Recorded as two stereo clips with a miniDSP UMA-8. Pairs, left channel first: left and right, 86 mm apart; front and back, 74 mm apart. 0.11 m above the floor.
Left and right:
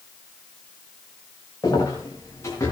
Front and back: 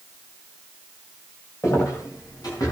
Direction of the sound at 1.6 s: 45° left.